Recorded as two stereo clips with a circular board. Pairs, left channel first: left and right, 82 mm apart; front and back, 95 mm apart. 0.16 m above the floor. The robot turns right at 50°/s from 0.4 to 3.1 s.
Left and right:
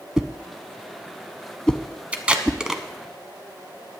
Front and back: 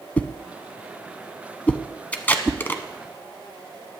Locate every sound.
0.2 s a whoosh: 30° right, 0.6 m; by 2.6 s 80° left, 0.6 m
2.1 s tape being pulled: 50° right, 1.1 m; by 2.8 s 15° right, 1.1 m